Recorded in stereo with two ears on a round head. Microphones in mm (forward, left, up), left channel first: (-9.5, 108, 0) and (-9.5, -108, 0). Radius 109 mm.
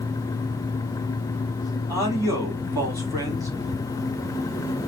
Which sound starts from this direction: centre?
A man speaking, at 1.9 s.